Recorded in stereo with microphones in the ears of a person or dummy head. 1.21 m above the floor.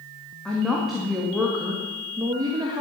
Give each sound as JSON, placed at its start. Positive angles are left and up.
{"t": 0.5, "sound": "a woman speaking", "side_deg": 5, "distance_m": 2.5}